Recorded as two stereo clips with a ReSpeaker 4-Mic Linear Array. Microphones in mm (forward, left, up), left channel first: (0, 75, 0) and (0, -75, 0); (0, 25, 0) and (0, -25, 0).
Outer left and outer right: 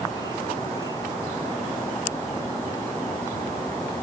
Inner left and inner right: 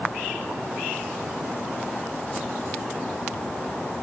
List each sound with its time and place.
Only background noise.